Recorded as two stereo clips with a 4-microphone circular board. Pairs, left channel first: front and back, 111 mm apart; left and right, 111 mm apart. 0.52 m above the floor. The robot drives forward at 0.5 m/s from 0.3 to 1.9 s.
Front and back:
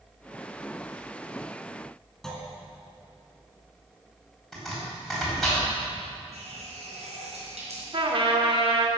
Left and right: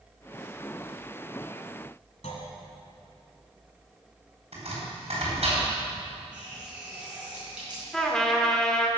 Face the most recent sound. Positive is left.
turn(degrees=175)